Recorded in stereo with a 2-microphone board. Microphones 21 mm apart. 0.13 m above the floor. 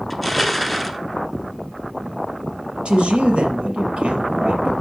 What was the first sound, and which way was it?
Crushing, 5° right (ahead or behind).